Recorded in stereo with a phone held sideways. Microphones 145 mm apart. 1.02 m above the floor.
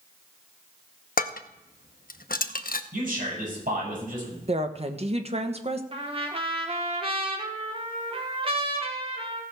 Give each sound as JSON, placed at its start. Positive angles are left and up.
{"t": 1.2, "sound": "dishes clattering", "side_deg": 80, "distance_m": 0.8}
{"t": 2.9, "sound": "a man speaking", "side_deg": -70, "distance_m": 7.0}
{"t": 4.5, "sound": "a woman speaking", "side_deg": -45, "distance_m": 1.1}
{"t": 5.9, "sound": "a trumpet", "side_deg": -40, "distance_m": 1.7}